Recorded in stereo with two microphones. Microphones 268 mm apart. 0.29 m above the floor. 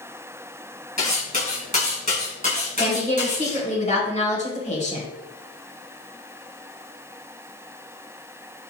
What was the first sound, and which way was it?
Cutlery clinking, 30° left (ahead or behind).